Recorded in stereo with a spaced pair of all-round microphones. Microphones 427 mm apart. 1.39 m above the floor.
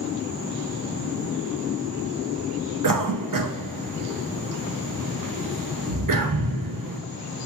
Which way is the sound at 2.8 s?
50° right (ahead or behind).